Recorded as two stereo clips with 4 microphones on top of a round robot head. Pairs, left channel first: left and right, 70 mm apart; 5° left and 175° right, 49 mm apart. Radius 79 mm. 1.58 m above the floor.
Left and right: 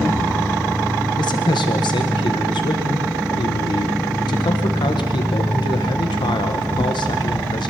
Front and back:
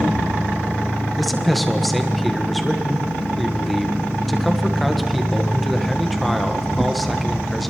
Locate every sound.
1.2 s a man speaking: 90° left, 1.7 m